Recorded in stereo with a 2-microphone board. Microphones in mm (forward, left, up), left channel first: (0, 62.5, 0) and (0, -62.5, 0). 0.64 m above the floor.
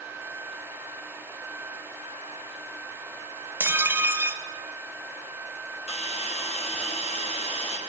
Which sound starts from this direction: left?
A hiss, at 5.9 s.